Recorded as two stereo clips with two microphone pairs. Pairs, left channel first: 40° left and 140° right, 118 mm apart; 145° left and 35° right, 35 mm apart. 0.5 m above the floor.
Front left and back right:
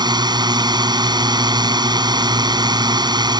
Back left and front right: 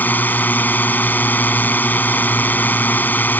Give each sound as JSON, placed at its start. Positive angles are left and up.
{"t": 0.0, "sound": "a drone", "azimuth_deg": 170}